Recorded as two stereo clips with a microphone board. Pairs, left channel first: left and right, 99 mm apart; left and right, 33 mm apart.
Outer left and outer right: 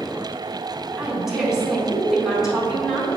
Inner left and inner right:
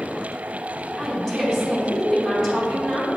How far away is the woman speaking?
About 2.5 m.